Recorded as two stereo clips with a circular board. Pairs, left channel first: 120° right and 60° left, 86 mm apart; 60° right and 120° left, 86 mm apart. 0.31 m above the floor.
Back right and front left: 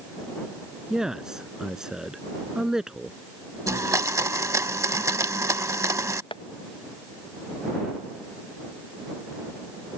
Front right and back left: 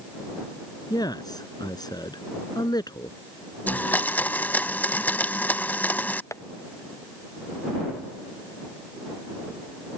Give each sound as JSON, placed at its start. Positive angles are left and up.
{"t": 0.9, "sound": "a man speaking", "azimuth_deg": -25}
{"t": 3.7, "sound": "a blender", "azimuth_deg": 10}
{"t": 6.3, "sound": "tapping", "azimuth_deg": -115}